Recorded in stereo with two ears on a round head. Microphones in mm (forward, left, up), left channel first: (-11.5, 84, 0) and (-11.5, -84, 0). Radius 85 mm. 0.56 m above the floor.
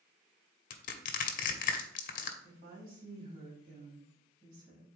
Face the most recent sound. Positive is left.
turn(degrees=-45)  # may be behind; listen again after turning